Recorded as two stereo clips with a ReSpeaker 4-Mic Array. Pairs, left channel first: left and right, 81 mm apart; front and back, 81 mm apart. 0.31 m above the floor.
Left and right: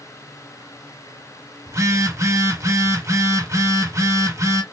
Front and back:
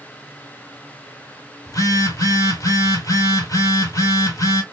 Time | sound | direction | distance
1.7 | a phone buzzing | 40° right | 1.2 m